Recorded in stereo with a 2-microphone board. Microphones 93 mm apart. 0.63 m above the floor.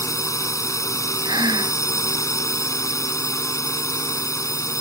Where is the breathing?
45° right (ahead or behind).